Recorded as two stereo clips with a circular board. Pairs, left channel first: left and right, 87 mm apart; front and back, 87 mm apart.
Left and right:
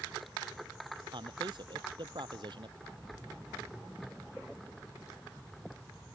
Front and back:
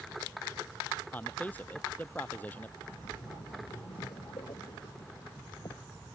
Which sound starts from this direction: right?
A man speaking, at 1.1 s.